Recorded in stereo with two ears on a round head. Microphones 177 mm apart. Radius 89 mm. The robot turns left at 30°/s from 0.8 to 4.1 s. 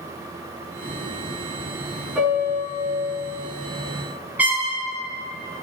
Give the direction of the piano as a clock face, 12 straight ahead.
12 o'clock.